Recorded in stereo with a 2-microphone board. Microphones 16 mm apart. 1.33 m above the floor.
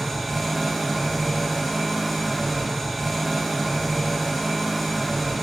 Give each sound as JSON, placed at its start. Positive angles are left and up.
{"t": 0.0, "sound": "an engine running", "side_deg": -5, "distance_m": 3.5}